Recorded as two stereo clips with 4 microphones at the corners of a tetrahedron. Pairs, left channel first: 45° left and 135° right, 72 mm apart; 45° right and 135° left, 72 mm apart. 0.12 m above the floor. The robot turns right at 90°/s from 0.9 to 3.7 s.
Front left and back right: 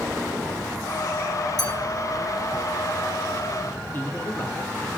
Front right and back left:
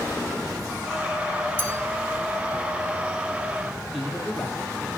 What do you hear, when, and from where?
1.6 s a clink: 20° left, 3.5 m; by 1.7 s 30° left, 3.5 m
3.9 s a man speaking: 45° left, 1.6 m